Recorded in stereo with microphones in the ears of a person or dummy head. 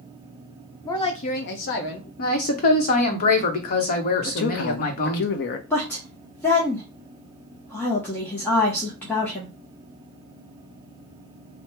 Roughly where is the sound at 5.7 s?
Centre.